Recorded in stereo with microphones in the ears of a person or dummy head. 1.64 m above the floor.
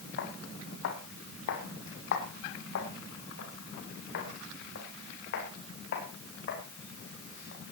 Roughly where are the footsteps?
Left.